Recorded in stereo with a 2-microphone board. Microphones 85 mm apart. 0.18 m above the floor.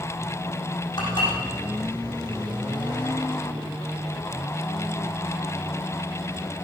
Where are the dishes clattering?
55° left (ahead or behind), 6 m.